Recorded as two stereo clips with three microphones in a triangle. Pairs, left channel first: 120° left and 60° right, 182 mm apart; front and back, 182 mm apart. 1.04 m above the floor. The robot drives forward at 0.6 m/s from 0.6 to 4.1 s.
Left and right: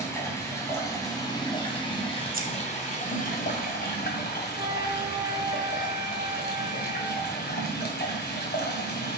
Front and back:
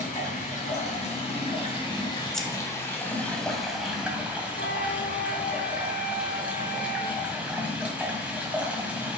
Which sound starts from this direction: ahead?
A flute, at 4.6 s.